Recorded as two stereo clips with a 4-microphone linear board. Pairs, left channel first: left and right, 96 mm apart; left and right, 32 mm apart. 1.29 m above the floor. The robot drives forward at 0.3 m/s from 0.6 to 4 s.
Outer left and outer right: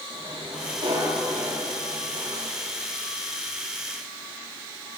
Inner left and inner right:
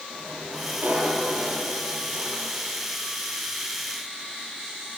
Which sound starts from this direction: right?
A sliding door, at 0.1 s.